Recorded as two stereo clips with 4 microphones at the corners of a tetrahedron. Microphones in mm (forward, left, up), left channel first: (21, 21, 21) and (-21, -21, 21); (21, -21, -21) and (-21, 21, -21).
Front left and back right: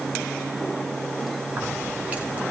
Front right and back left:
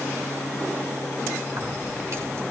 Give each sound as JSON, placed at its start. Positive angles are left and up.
{"t": 1.5, "sound": "keys jangling", "azimuth_deg": 160, "distance_m": 5.5}